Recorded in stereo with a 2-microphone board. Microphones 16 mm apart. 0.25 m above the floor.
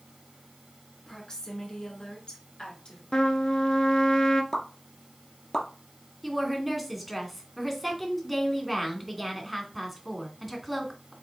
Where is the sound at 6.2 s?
5° left (ahead or behind), 2 m.